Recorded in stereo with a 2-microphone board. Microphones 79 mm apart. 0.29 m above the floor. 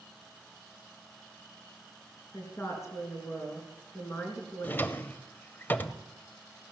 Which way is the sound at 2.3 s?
35° left (ahead or behind).